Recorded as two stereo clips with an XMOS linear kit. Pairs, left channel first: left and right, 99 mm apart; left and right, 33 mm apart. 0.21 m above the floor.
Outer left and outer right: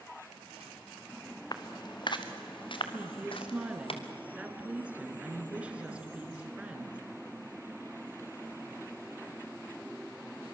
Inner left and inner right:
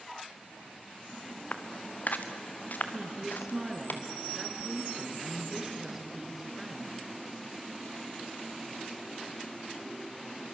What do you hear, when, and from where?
1.5 s footsteps: 45° left (ahead or behind), 1.9 m; by 3.9 s 65° left (ahead or behind), 3 m
2.9 s a woman speaking: 15° right (ahead or behind), 3 m